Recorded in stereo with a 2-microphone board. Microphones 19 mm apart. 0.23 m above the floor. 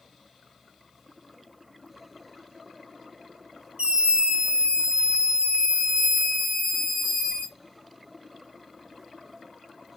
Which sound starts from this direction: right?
A scream, at 3.8 s.